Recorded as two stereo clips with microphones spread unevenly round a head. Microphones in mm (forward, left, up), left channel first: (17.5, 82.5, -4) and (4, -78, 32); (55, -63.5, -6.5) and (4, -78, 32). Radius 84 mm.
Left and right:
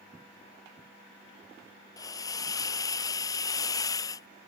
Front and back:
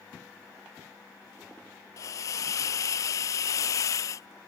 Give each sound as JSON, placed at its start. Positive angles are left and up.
{"t": 2.0, "sound": "a hiss", "azimuth_deg": 15}